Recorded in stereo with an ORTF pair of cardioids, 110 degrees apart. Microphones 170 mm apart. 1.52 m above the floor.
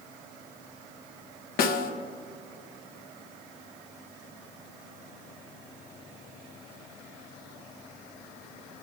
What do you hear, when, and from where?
1.6 s a snare drum: 65° left, 1.1 m